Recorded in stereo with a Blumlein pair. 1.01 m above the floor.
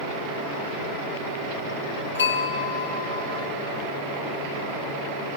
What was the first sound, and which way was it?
A bell, 70° left.